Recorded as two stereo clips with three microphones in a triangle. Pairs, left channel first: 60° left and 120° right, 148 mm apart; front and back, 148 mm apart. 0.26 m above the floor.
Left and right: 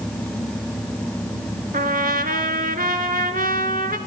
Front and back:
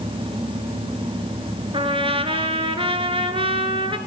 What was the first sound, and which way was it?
A trumpet, 130° right.